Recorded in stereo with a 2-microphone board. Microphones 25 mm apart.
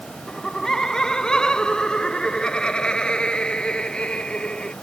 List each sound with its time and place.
0.3 s laughter: 20° left (ahead or behind); by 4.7 s 40° left (ahead or behind)